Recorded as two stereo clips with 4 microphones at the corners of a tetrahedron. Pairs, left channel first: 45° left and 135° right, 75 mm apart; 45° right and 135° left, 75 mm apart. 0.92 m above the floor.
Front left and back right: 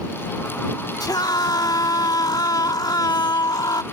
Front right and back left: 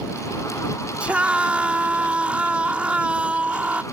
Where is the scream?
60° left.